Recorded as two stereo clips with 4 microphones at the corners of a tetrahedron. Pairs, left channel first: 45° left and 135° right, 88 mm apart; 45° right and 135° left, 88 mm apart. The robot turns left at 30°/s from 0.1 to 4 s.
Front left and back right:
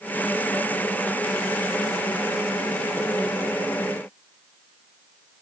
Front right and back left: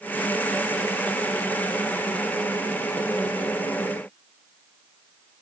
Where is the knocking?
I don't hear knocking.